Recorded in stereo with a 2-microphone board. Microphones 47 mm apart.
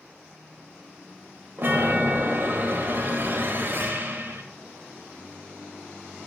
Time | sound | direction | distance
1.6 | a chime | 50° right (ahead or behind) | 0.7 m